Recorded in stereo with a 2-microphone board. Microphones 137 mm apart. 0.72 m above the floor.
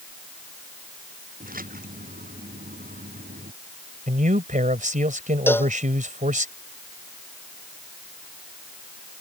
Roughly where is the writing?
No writing in this recording.